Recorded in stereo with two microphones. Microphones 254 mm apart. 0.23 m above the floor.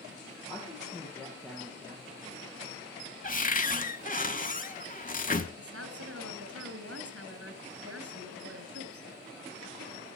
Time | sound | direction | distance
0.5 | a woman speaking | 20° left (ahead or behind) | 5.5 m
3.2 | a cupboard door | 30° left (ahead or behind) | 0.7 m
5.6 | a woman speaking | 65° right (ahead or behind) | 2.5 m